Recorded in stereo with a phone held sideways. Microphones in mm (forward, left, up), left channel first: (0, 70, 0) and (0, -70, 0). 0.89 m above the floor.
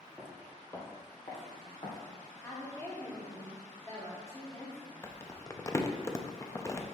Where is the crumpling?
20° left (ahead or behind), 0.5 m.